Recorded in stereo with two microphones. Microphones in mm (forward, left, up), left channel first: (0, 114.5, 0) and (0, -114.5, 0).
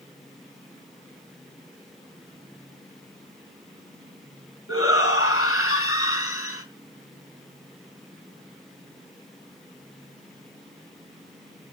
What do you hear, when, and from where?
4.7 s a shout: 70° left (ahead or behind), 3.5 m